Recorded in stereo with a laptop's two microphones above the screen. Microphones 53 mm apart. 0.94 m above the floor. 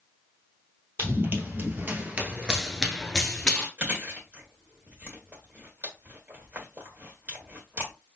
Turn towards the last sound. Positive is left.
turn(degrees=-35)  # may be behind; listen again after turning